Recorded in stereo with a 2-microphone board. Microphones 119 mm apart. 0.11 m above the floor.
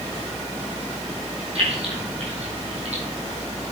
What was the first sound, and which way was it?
Keys jangling, 55° right (ahead or behind).